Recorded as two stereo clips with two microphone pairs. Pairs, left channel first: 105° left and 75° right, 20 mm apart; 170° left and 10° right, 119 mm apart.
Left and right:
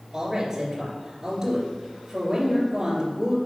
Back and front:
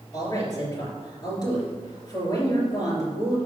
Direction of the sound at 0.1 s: 140° right.